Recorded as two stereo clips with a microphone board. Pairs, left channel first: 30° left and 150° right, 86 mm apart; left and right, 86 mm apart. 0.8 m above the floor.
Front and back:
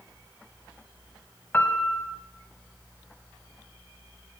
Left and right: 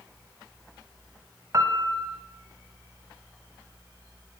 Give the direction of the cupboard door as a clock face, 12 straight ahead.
I don't hear a cupboard door.